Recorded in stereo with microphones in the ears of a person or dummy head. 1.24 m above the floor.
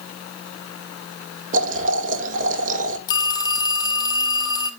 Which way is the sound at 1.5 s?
45° right (ahead or behind).